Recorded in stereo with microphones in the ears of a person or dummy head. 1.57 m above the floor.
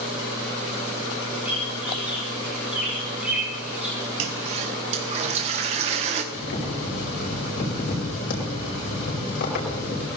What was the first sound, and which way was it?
A bird, 10° right (ahead or behind).